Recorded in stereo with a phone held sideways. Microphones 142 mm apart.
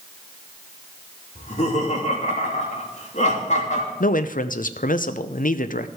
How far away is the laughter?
About 2.5 m.